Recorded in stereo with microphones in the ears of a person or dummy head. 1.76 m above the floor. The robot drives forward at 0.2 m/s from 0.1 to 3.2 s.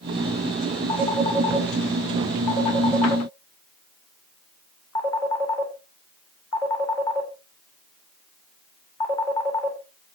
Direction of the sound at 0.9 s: 20° left (ahead or behind).